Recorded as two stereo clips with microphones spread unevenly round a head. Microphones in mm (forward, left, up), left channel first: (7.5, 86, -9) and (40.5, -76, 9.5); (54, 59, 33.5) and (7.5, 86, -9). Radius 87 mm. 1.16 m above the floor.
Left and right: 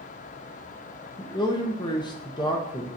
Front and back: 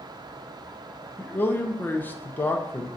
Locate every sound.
1.2 s a man speaking: 50° left, 1.2 m